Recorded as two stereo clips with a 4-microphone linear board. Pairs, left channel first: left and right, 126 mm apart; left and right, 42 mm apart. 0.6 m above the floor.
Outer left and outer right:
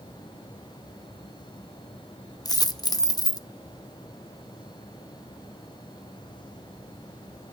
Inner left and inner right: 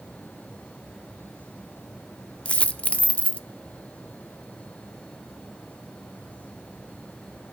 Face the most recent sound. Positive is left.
turn(degrees=30)  # may be behind; listen again after turning